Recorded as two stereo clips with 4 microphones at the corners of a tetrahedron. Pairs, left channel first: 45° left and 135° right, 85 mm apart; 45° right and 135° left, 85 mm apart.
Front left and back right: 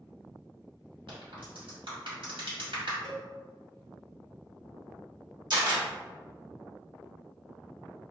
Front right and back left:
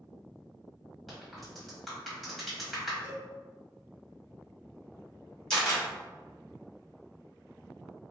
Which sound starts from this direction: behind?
A cowbell, at 3.0 s.